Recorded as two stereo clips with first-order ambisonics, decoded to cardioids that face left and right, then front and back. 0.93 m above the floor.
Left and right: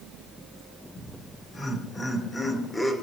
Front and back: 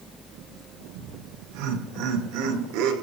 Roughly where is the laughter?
Behind.